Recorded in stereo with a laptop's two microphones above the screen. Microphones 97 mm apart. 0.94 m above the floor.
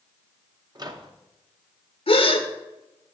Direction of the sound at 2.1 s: 65° left (ahead or behind).